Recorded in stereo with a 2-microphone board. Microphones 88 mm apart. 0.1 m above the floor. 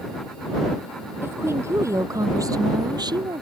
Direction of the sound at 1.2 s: 30° right (ahead or behind).